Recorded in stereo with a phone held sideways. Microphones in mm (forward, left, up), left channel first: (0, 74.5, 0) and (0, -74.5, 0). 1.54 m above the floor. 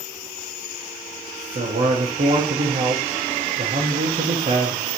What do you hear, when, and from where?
1.6 s a man speaking: 55° right (ahead or behind), 0.8 m